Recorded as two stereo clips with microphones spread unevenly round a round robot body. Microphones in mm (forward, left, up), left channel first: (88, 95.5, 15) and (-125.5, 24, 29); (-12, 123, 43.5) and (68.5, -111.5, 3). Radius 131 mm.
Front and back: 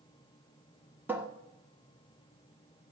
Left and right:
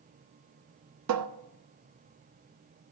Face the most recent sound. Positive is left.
turn(degrees=-75)